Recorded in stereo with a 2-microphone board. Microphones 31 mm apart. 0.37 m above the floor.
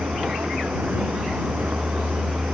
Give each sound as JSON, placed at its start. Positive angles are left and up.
{"t": 0.0, "sound": "a vehicle", "side_deg": -85}